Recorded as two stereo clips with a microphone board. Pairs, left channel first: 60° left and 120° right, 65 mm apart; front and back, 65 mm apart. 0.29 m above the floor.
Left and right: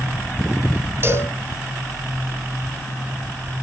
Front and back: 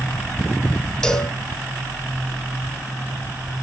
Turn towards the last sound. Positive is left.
turn(degrees=-75)